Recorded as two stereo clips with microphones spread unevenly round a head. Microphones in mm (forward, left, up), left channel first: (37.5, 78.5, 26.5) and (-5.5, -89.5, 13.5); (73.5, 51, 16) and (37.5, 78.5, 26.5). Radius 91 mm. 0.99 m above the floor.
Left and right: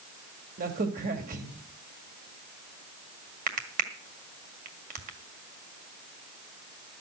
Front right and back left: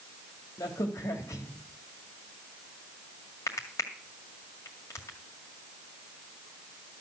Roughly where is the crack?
Ahead right.